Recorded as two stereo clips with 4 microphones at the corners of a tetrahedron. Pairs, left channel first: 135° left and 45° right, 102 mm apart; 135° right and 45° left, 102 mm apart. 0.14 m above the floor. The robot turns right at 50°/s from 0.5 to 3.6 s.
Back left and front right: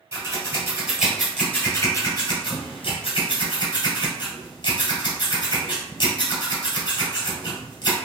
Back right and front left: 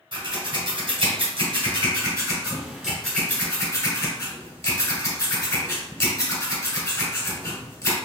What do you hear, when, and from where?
0.1 s scissors: 15° left, 1.6 m; by 8.0 s 170° left, 1.6 m